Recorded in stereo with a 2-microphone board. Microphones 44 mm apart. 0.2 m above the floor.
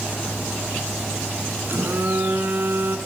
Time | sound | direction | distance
1.7 | a phone buzzing | 60° right (ahead or behind) | 1.4 m